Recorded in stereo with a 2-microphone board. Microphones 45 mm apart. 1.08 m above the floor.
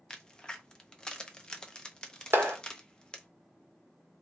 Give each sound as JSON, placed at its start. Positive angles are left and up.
{"t": 0.1, "sound": "a crack", "side_deg": 20, "distance_m": 0.7}
{"t": 2.3, "sound": "a clap", "side_deg": -60, "distance_m": 1.2}